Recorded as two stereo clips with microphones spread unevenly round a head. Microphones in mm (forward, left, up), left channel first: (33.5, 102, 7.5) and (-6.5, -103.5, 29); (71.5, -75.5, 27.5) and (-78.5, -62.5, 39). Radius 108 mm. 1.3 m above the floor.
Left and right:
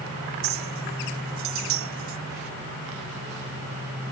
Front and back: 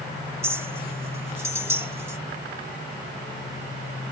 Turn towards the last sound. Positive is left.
turn(degrees=-110)